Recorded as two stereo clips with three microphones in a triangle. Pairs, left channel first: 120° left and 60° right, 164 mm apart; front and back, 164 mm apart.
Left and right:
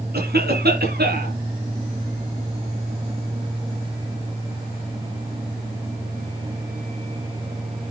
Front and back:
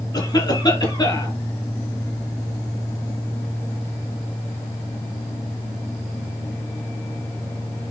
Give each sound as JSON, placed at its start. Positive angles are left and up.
{"t": 0.1, "sound": "a cough", "azimuth_deg": -65, "distance_m": 5.0}